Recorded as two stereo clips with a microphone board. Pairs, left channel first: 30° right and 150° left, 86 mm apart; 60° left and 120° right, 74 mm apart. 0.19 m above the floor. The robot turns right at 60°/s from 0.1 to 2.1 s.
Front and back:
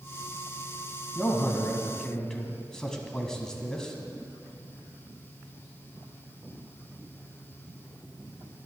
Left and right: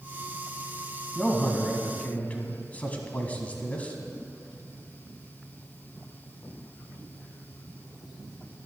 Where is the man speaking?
15° right, 1.6 m; by 4.0 s 40° left, 1.6 m.